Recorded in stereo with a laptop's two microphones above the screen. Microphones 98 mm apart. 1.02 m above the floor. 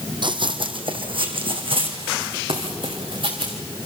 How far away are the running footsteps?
About 1.6 m.